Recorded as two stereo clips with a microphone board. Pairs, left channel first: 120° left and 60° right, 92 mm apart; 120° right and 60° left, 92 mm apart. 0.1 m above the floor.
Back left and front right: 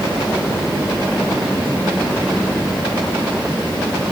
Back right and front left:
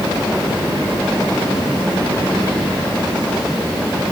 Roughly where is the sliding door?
No sliding door in this recording.